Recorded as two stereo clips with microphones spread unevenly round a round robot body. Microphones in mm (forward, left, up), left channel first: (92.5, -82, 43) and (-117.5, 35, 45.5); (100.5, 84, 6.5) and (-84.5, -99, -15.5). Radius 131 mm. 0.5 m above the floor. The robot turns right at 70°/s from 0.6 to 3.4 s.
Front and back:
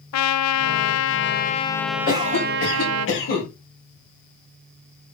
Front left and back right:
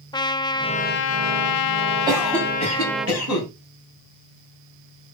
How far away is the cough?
About 4 m.